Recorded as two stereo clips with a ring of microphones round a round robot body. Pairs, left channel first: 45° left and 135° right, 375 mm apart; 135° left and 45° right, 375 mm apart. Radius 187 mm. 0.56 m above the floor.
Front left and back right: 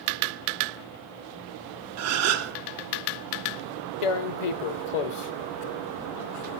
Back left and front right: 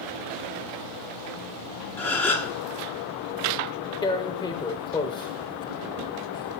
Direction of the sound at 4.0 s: 55° left.